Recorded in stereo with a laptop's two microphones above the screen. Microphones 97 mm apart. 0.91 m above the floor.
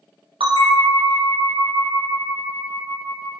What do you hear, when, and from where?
0.4 s a bell: 70° right (ahead or behind), 0.8 m